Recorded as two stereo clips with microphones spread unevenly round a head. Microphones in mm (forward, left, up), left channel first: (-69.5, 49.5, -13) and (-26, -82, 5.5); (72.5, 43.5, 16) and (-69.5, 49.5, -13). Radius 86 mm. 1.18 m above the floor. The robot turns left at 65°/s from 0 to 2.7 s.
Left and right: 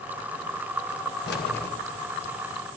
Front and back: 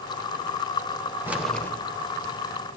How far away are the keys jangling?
About 2.5 m.